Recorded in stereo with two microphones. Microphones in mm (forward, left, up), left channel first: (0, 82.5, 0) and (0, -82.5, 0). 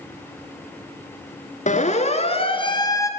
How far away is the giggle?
No giggle in this recording.